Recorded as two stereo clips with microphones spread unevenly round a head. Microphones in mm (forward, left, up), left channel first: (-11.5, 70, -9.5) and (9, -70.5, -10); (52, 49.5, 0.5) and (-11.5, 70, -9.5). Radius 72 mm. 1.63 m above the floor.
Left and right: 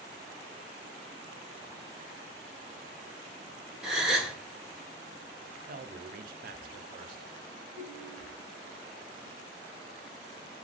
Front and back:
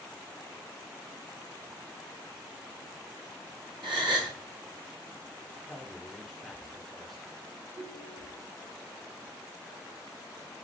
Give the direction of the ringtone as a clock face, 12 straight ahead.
6 o'clock.